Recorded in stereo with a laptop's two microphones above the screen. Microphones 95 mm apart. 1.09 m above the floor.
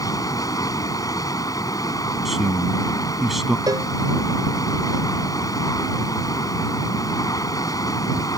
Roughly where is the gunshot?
No gunshot in this recording.